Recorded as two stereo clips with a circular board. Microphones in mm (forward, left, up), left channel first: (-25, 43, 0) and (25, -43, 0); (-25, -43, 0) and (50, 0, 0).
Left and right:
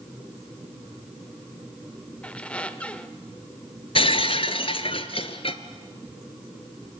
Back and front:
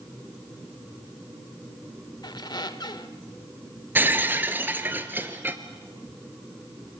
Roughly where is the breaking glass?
Left.